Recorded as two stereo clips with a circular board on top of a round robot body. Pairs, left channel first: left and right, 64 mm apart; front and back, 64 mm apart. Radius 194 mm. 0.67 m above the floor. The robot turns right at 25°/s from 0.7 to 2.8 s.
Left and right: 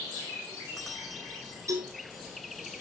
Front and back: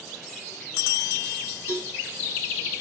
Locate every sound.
1.7 s a cowbell: 55° right, 7.5 m; by 1.9 s 50° right, 7.5 m